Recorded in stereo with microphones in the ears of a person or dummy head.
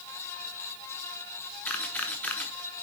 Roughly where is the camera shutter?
Centre.